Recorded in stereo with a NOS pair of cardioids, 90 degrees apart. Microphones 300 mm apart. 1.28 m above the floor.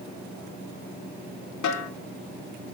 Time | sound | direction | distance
1.6 | a snare drum | 65° left | 3.5 m